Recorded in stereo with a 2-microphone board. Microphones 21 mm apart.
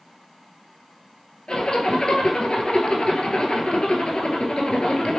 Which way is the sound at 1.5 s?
45° left (ahead or behind).